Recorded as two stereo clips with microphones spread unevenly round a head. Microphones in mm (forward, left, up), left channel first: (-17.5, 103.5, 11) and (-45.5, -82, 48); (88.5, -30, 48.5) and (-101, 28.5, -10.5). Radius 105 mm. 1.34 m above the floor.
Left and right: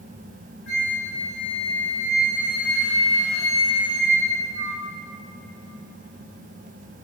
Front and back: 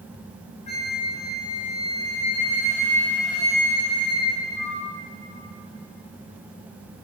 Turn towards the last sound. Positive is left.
turn(degrees=45)